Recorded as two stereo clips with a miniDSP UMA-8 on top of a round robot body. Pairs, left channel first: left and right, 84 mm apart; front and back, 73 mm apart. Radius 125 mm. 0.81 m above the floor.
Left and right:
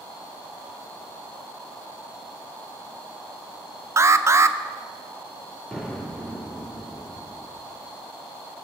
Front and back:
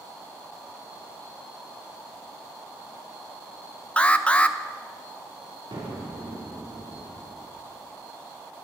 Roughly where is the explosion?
Behind.